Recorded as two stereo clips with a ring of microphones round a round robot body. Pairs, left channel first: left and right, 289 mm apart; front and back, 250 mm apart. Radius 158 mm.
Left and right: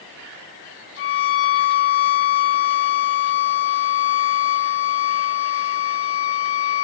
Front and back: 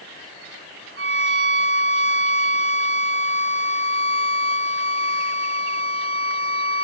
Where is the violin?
140° left, 1.0 m.